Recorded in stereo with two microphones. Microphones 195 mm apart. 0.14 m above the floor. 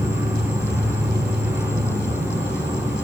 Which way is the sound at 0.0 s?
10° right (ahead or behind).